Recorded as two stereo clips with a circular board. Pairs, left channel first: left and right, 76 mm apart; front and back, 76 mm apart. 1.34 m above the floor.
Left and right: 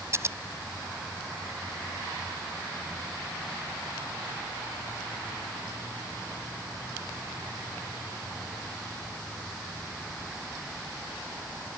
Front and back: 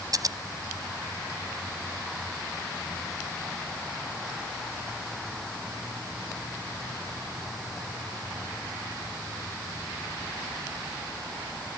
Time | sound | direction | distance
0.1 | scissors | 145° right | ?